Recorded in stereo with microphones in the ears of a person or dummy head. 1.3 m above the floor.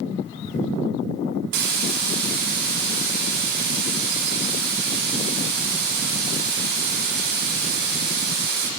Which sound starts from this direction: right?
A hiss, at 1.5 s.